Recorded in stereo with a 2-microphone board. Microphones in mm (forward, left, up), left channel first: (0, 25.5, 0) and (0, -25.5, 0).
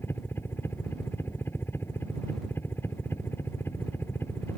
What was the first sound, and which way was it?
A helicopter, 45° left (ahead or behind).